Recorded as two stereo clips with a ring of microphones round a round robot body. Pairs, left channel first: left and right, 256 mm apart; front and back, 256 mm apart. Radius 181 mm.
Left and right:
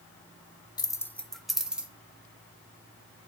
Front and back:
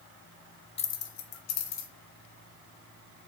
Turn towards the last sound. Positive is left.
turn(degrees=-5)